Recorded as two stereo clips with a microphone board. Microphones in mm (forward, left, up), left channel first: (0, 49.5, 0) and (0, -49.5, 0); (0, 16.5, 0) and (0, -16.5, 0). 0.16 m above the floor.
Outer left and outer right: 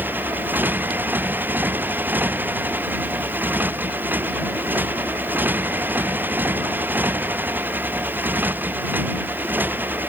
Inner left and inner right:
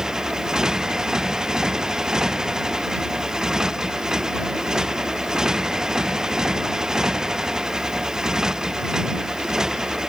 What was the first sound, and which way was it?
A motorcycle, 20° right (ahead or behind).